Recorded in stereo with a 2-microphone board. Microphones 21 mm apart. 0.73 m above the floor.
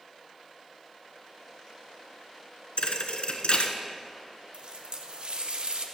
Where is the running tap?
55° right (ahead or behind), 0.9 m.